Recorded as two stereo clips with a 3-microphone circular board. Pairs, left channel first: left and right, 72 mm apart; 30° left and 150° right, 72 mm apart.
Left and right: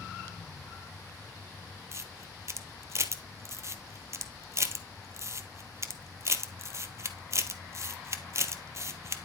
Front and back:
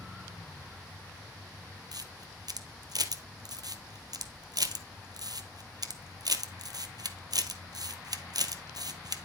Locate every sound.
1.9 s a camera shutter: 135° right, 1.2 m